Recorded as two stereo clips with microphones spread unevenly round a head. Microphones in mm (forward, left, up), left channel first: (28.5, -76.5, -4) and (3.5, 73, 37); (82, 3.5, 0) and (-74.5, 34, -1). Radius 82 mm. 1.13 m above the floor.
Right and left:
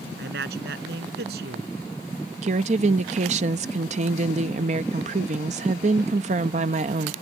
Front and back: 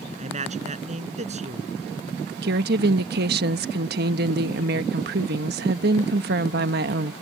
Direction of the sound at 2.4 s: 150° left.